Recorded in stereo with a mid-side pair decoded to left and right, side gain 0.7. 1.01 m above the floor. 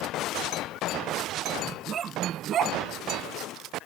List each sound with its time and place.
1.6 s a dog barking: 35° right; by 2.8 s 50° right